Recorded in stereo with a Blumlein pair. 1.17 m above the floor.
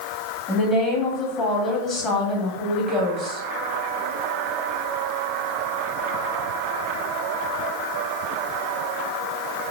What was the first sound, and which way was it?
A woman speaking, 20° left.